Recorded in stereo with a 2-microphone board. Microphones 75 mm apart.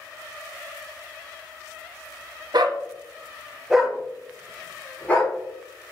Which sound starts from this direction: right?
A dog barking, at 2.5 s.